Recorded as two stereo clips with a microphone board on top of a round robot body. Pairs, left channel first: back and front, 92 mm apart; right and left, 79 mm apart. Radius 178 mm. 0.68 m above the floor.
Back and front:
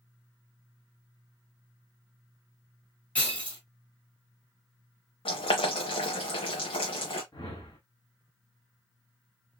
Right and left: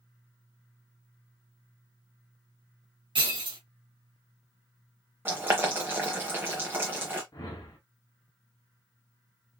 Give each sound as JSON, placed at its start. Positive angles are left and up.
{"t": 3.1, "sound": "breaking glass", "azimuth_deg": 105, "distance_m": 1.5}
{"t": 5.2, "sound": "boiling", "azimuth_deg": 150, "distance_m": 0.6}
{"t": 7.3, "sound": "a whoosh", "azimuth_deg": -130, "distance_m": 0.7}